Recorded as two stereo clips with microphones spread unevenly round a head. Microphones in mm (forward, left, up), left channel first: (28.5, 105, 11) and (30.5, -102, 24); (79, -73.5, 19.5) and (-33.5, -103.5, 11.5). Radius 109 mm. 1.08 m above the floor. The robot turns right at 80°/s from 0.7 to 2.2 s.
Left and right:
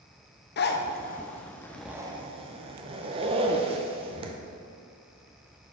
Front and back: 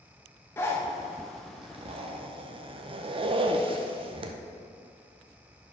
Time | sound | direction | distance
0.6 | a zipper | 90° left | 0.6 m